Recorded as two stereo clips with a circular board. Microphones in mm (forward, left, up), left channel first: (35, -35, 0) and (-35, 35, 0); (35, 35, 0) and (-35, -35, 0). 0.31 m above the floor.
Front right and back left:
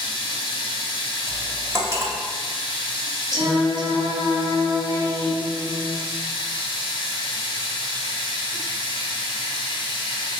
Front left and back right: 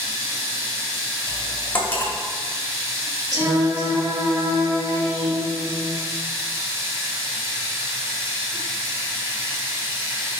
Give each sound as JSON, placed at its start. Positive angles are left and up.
{"t": 0.0, "sound": "running water", "azimuth_deg": -75, "distance_m": 1.0}
{"t": 1.3, "sound": "cutlery clinking", "azimuth_deg": 95, "distance_m": 0.6}
{"t": 3.3, "sound": "singing", "azimuth_deg": 175, "distance_m": 0.9}